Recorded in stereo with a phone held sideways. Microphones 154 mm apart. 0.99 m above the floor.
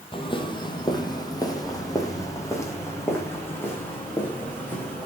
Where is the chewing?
I don't hear chewing.